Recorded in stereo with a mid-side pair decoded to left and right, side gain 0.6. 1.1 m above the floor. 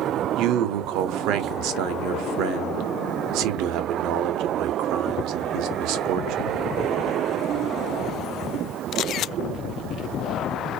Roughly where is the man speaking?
Right.